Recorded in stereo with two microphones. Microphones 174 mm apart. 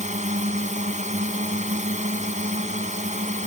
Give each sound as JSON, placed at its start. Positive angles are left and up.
{"t": 0.0, "sound": "a drone", "side_deg": -45}